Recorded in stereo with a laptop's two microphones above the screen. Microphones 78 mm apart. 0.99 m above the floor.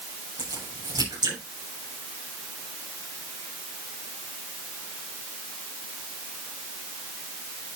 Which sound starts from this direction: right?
A crack, at 0.4 s.